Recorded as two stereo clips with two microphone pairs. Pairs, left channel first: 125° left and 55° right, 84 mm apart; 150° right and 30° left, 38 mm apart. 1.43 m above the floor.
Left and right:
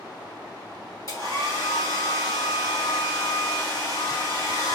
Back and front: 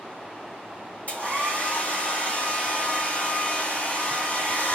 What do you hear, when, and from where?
1.1 s a hair dryer: 170° left, 2.5 m